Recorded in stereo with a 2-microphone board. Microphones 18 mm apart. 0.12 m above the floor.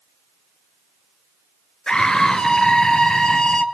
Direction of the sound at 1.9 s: 45° left (ahead or behind).